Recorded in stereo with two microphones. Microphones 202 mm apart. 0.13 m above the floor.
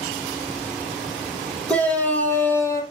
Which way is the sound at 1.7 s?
5° left (ahead or behind).